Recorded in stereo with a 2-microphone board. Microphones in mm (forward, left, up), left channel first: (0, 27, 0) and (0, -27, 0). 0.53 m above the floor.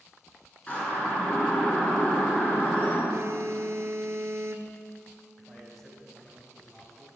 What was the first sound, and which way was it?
A siren, 25° left (ahead or behind).